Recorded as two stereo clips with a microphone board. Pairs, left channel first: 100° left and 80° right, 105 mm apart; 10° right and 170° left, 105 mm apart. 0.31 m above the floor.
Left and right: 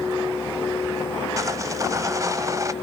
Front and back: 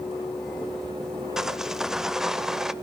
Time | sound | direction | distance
1.4 | sawing | 110° right | 0.9 m